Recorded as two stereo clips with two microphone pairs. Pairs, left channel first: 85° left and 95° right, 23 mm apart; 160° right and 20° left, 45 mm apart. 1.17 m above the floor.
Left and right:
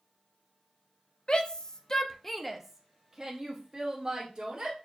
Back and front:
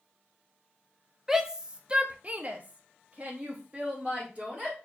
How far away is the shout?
About 0.7 m.